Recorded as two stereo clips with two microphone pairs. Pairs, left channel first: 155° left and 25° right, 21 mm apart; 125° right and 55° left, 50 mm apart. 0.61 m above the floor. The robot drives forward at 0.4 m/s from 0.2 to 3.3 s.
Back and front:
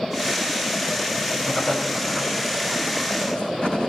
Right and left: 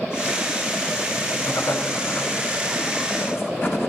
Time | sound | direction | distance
1.4 | writing | 160° right | 4 m